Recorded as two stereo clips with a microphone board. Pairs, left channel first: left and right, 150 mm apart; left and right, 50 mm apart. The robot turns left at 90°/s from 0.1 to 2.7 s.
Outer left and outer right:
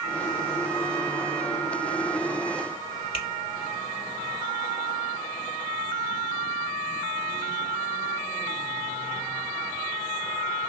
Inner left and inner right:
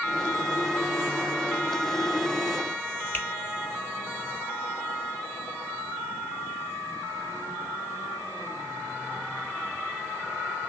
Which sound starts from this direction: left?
A finger snap, at 3.1 s.